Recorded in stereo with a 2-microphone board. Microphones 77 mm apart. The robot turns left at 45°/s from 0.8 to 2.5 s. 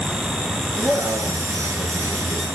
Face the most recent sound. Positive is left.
turn(degrees=-145)